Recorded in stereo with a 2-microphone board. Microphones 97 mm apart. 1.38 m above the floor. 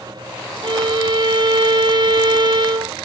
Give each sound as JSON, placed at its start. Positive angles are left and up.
{"t": 0.6, "sound": "a violin", "side_deg": -50}